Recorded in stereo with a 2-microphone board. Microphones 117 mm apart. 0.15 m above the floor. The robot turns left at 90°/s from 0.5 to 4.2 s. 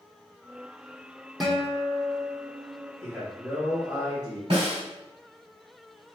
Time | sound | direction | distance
1.4 | a guitar | straight behind | 1.1 m
3.0 | a man speaking | 10° left | 1.8 m
4.5 | a snare drum | 55° right (ahead or behind) | 2.0 m